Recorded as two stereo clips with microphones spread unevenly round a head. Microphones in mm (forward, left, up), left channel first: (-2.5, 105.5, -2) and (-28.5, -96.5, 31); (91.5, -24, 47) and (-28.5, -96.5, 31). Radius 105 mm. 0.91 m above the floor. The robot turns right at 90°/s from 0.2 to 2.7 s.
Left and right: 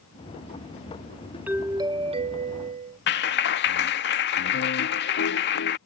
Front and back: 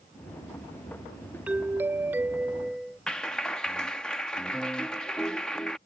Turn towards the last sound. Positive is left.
turn(degrees=115)